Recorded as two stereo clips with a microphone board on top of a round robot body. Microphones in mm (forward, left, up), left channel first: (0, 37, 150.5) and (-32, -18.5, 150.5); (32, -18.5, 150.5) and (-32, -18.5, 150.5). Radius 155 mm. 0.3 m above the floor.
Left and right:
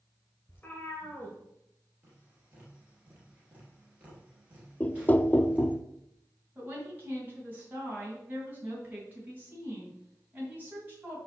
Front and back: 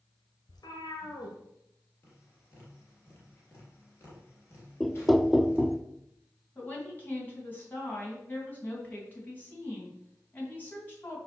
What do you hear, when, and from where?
0.5 s a cat meowing: 5° right, 1.8 m
2.0 s tapping: 55° right, 3.5 m
4.8 s knocking: 90° left, 0.6 m
6.5 s a woman speaking: 60° right, 3.5 m